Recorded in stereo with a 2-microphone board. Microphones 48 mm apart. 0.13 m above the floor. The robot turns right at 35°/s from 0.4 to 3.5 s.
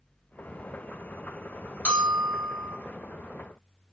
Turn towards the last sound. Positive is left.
turn(degrees=95)